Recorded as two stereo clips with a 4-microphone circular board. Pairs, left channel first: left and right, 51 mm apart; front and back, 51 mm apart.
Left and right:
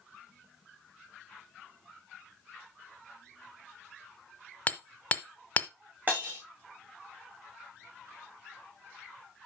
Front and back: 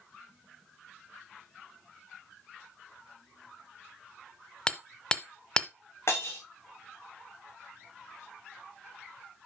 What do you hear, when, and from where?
4.7 s hammering: 60° left, 1.0 m
6.1 s breaking glass: 35° right, 5.5 m